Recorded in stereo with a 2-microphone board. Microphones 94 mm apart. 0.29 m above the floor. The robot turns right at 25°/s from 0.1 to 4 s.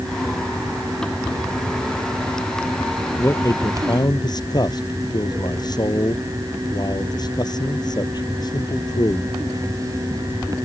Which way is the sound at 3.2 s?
25° left (ahead or behind).